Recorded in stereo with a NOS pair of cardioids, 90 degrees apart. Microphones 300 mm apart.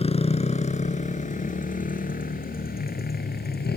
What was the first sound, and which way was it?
A motorcycle, 20° left.